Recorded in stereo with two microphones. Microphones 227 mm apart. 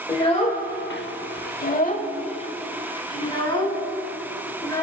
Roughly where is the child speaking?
Left.